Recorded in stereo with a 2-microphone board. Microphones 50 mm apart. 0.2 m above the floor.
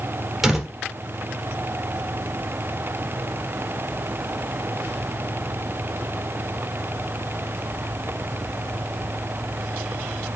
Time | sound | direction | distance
0.4 | a door slam | 5° right (ahead or behind) | 3.5 m